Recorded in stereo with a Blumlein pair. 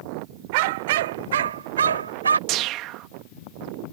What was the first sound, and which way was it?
A dog barking, 45° right.